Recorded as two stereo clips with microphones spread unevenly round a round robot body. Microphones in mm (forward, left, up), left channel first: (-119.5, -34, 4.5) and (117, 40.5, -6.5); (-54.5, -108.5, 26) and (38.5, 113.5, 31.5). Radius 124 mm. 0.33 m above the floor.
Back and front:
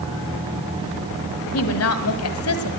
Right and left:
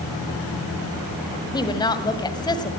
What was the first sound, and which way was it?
A woman speaking, 175° left.